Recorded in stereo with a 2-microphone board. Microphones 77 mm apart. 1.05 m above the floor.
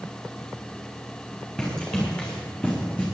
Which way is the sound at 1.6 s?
15° left (ahead or behind).